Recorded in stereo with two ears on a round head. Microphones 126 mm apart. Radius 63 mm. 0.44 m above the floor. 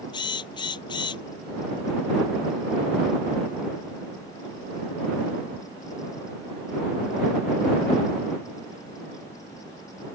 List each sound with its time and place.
0.1 s a drill: 30° left (ahead or behind)